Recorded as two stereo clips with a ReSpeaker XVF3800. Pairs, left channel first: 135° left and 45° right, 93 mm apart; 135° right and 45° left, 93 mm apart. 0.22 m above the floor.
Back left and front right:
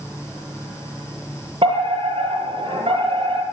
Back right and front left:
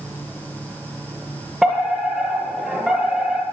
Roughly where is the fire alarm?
Ahead right.